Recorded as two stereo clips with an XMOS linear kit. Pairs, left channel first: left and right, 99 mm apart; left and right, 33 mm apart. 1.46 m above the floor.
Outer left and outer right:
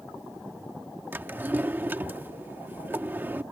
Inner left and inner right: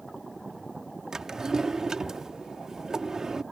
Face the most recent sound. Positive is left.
turn(degrees=-20)  # may be behind; listen again after turning